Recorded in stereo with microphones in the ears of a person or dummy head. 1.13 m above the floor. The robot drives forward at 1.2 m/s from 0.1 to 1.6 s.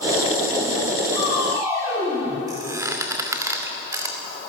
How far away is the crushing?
About 8.5 m.